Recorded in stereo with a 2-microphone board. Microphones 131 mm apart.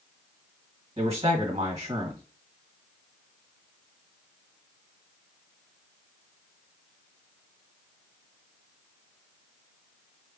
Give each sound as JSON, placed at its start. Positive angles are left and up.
{"t": 1.0, "sound": "a man speaking", "side_deg": -40, "distance_m": 1.4}